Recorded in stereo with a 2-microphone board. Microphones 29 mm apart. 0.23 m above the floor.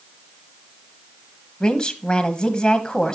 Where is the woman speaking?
25° left (ahead or behind), 1.0 m.